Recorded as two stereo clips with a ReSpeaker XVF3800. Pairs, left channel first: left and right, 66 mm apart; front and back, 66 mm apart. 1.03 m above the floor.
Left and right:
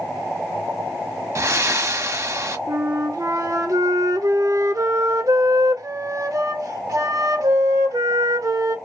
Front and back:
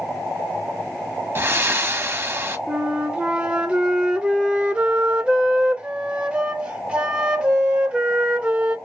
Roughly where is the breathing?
Behind right.